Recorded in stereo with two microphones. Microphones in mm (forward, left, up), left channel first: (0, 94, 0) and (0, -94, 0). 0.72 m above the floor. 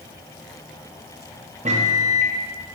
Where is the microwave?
40° right (ahead or behind), 0.5 m.